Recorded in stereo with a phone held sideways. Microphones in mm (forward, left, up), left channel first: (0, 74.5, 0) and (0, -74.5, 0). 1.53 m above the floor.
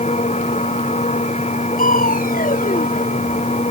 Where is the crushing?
80° left.